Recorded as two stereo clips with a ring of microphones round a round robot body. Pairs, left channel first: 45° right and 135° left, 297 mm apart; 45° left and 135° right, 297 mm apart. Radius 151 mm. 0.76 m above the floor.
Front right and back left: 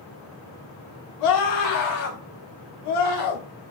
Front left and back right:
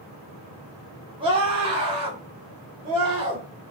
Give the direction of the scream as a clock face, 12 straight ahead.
2 o'clock.